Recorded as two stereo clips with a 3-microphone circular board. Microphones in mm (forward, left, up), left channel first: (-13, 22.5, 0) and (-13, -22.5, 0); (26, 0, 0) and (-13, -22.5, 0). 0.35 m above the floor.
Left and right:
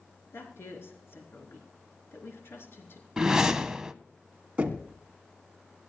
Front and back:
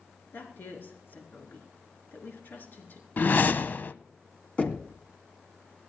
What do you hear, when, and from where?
0.3 s a woman speaking: 70° left, 4 m
3.2 s a whoosh: 15° right, 0.6 m
4.6 s knocking: 30° right, 2 m